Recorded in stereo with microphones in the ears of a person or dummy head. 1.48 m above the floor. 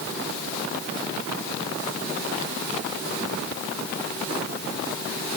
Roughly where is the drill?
I don't hear a drill.